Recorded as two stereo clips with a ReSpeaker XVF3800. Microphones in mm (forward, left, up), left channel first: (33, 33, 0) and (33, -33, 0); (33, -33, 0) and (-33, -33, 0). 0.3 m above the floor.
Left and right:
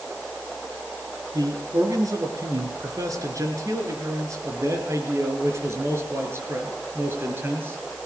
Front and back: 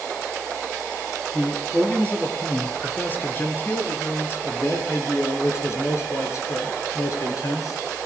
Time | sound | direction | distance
1.3 | a man speaking | 70° right | 5 m